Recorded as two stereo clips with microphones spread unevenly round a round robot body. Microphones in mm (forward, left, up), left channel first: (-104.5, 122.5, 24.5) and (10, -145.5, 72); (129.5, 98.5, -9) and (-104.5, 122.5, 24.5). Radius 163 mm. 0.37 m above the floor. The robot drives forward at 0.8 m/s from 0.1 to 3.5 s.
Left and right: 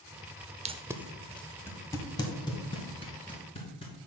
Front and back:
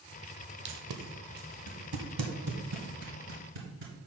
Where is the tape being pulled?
140° right, 0.5 m; by 4.1 s 175° right, 2.5 m.